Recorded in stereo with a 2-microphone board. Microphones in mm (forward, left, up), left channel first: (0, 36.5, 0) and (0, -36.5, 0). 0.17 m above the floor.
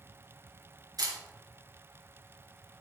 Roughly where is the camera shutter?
Right.